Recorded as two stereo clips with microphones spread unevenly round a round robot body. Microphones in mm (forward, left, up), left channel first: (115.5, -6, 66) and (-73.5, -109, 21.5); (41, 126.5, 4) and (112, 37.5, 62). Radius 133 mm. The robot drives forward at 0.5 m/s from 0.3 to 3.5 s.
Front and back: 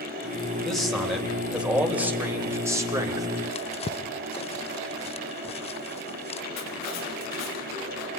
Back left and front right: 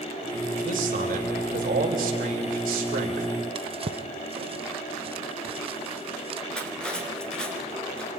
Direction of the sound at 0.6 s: 65° right.